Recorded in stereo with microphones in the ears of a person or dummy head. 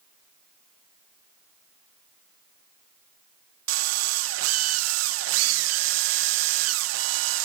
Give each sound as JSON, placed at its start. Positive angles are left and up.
{"t": 3.7, "sound": "a drill", "side_deg": -75}